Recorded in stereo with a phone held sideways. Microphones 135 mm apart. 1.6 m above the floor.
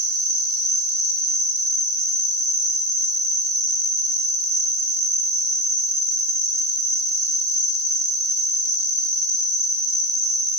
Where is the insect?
50° right (ahead or behind), 1.4 m.